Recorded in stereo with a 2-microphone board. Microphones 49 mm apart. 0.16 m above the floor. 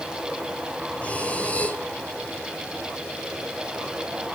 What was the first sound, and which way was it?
Breathing, 25° left (ahead or behind).